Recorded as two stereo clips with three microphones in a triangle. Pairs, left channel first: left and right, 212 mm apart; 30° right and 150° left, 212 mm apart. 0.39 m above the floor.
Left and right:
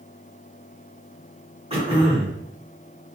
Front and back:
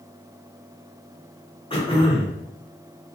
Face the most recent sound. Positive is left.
turn(degrees=-60)